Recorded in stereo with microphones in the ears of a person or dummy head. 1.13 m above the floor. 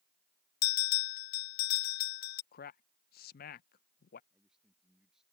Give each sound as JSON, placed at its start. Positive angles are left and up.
{"t": 0.6, "sound": "a bell", "side_deg": 50}
{"t": 2.5, "sound": "a man speaking", "side_deg": 50}
{"t": 4.3, "sound": "a man speaking", "side_deg": -5}